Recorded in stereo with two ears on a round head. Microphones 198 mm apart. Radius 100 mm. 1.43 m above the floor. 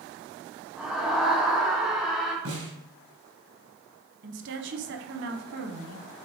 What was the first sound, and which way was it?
A scream, 5° right (ahead or behind).